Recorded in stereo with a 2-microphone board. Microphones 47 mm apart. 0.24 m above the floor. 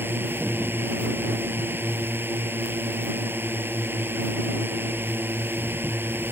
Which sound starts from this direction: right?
A drone, at 0.0 s.